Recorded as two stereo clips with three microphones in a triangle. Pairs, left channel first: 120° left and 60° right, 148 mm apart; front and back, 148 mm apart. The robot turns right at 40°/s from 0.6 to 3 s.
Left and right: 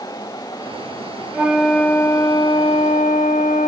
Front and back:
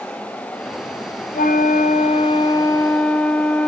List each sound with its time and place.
1.3 s a flute: 20° left, 1.0 m; by 3.7 s 90° left, 1.0 m